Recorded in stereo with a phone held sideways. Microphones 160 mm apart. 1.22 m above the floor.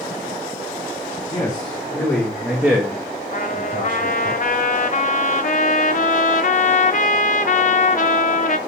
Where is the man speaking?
30° left (ahead or behind), 1.7 m; by 4.3 s 65° right (ahead or behind), 1.6 m.